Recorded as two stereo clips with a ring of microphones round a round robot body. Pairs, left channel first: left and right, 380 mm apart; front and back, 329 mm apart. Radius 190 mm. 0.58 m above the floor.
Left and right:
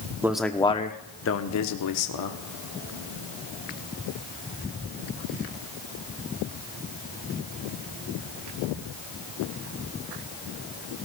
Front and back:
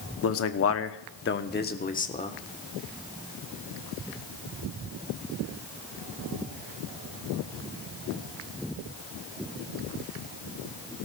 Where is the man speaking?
10° right, 0.9 m; by 2.4 s 70° left, 1.4 m.